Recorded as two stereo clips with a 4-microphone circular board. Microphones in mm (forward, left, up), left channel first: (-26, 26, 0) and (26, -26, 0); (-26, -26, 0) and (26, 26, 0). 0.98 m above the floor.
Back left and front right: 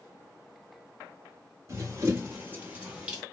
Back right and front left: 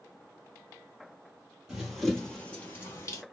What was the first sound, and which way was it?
Running footsteps, 35° right.